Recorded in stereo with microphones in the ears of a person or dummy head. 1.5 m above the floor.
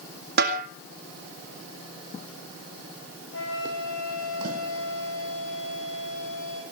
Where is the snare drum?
55° right (ahead or behind), 2.0 m.